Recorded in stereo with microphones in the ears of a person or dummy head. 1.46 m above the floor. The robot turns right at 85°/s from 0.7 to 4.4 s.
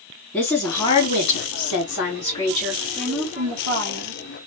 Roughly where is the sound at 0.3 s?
Ahead.